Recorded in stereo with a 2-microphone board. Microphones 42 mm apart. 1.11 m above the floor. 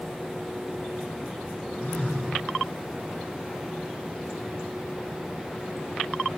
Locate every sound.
1.8 s a phone buzzing: 40° left (ahead or behind), 3 m